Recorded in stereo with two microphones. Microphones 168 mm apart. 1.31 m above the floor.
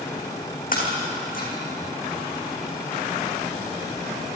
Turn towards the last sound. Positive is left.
turn(degrees=55)  # may be behind; listen again after turning